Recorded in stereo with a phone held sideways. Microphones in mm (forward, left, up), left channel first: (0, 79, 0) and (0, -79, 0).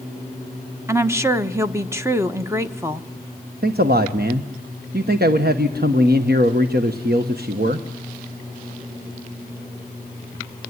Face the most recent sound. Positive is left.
turn(degrees=-80)